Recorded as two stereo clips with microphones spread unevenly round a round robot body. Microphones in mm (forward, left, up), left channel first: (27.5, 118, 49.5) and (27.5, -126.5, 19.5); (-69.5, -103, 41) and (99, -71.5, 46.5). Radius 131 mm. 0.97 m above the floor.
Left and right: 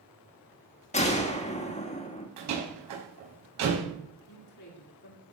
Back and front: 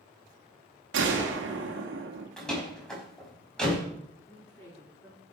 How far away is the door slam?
About 5 m.